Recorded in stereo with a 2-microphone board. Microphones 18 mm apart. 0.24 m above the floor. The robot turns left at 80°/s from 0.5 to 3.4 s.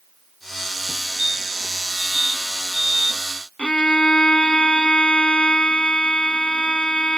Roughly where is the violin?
Left.